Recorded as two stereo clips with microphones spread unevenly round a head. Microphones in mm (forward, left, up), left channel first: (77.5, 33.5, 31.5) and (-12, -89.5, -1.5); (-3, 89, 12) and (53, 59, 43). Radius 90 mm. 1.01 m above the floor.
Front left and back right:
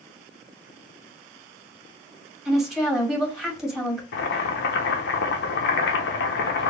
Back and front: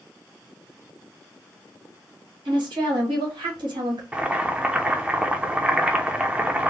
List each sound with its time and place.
2.5 s a woman speaking: 45° right, 1.9 m
4.1 s boiling: 45° left, 0.8 m